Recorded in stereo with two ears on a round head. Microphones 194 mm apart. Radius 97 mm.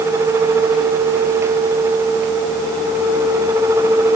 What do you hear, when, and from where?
Only background noise.